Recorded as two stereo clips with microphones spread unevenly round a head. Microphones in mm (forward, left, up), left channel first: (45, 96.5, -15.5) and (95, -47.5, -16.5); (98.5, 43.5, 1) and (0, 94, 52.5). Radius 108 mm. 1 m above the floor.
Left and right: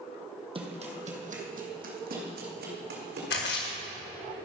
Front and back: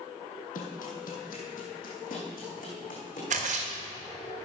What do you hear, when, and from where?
0.6 s running footsteps: 25° right, 1.8 m; by 3.2 s 75° right, 3 m
3.3 s a splash: 130° left, 1.6 m